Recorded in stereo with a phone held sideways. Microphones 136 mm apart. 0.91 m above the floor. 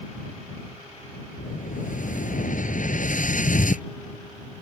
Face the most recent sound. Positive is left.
turn(degrees=75)  # may be behind; listen again after turning